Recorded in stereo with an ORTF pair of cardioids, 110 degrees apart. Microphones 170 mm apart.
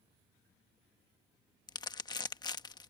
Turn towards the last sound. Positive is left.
turn(degrees=25)